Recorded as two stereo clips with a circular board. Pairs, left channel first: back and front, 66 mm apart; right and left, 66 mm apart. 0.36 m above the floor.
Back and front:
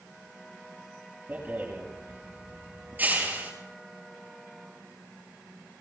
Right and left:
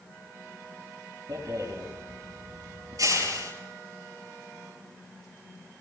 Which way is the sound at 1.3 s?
65° left.